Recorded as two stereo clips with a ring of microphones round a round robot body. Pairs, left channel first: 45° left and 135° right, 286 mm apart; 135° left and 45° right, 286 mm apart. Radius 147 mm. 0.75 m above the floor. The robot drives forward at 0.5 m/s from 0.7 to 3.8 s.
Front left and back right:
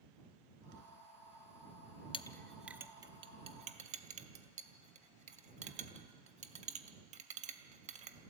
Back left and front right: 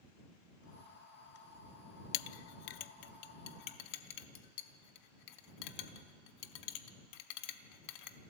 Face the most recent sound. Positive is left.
turn(degrees=155)